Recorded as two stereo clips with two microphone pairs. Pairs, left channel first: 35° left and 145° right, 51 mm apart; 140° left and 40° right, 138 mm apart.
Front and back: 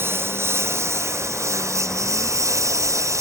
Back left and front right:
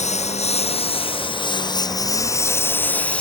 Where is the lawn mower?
175° left; by 3.2 s 140° right.